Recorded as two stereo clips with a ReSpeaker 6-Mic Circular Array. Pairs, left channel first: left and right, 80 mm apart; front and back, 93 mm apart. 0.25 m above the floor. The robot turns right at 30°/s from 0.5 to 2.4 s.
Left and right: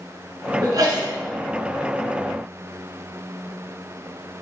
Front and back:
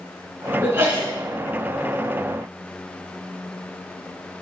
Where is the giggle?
No giggle in this recording.